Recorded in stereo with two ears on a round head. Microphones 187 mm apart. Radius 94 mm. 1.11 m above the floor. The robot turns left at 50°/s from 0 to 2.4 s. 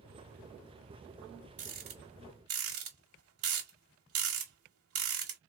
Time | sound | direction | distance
1.6 | a rattle | 35° right (ahead or behind) | 2 m